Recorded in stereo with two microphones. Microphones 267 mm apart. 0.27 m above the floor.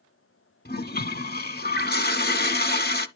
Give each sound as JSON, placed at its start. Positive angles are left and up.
{"t": 0.7, "sound": "a toilet flushing", "side_deg": 40, "distance_m": 0.5}